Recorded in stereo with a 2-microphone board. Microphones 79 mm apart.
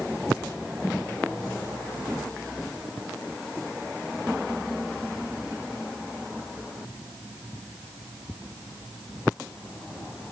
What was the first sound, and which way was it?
Only background noise.